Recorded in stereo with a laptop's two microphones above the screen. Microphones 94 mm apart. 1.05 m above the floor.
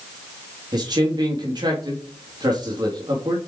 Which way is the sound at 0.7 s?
50° right (ahead or behind).